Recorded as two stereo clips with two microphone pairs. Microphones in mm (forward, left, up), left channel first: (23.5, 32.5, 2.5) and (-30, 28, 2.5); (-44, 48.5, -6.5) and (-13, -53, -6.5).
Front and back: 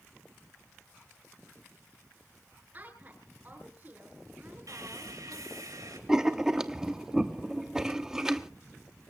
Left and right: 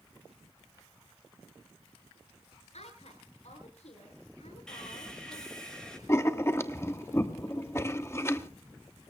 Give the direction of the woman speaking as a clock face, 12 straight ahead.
8 o'clock.